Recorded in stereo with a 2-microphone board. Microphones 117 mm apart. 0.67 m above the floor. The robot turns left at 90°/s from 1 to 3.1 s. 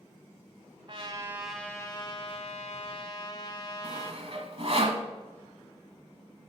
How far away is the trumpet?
About 1.3 m.